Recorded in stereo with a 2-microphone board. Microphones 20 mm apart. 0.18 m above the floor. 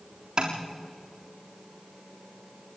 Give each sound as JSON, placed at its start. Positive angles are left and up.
{"t": 0.4, "sound": "tapping", "side_deg": -40, "distance_m": 3.5}